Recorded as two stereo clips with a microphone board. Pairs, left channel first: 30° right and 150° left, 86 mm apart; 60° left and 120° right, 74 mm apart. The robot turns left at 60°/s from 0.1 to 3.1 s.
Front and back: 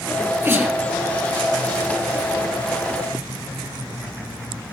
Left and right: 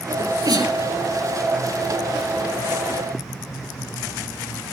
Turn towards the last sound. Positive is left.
turn(degrees=55)